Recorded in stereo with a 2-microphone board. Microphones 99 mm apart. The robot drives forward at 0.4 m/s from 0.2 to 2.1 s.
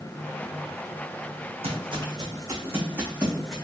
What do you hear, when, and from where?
1.6 s footsteps: 70° right (ahead or behind), 0.9 m; by 3.5 s centre (ahead or behind), 1.1 m